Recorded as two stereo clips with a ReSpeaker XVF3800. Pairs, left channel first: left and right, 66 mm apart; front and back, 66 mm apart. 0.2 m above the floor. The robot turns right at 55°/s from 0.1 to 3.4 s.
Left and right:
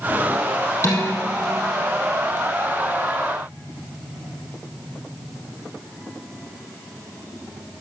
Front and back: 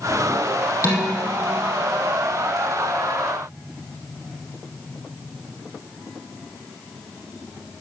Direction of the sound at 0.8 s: 40° left.